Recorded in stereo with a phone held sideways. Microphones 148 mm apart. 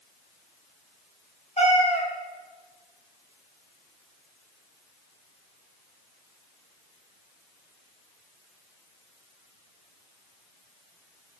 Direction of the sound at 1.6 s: 45° left (ahead or behind).